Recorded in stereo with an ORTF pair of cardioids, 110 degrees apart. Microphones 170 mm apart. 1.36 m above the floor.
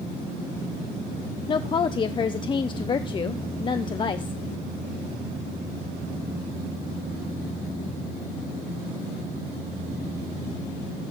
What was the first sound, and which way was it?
A woman speaking, 30° left.